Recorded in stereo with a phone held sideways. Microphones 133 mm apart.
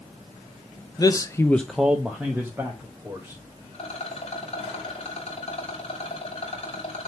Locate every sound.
1.0 s a man speaking: 30° left (ahead or behind), 0.8 m; by 3.4 s 15° right (ahead or behind), 3 m
3.7 s a rattle: 45° left (ahead or behind), 2.5 m